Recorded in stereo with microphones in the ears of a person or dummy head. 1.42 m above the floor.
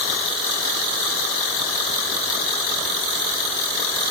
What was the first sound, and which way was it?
Only background noise.